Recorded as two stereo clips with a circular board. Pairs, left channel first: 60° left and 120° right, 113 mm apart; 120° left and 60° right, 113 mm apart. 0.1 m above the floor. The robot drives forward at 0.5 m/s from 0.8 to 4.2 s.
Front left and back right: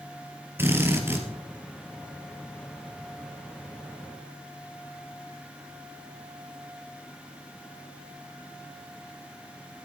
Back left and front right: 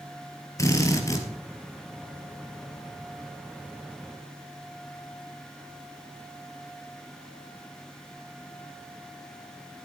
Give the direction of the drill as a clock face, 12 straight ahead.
6 o'clock.